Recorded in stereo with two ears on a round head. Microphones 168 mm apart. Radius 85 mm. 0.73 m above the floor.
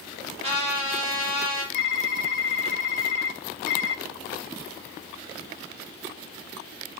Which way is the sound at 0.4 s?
30° right (ahead or behind).